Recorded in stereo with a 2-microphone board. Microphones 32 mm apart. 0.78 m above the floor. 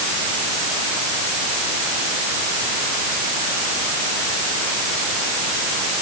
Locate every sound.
Only background noise.